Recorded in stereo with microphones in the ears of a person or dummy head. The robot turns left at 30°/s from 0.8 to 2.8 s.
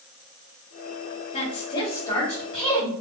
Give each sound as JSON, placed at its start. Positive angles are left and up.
{"t": 1.3, "sound": "a woman speaking", "azimuth_deg": 35, "distance_m": 1.9}